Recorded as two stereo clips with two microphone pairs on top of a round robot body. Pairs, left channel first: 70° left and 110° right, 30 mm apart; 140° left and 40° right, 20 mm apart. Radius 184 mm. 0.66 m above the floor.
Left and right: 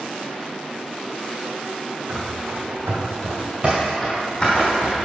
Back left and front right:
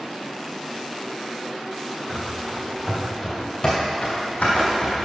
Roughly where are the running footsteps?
Right.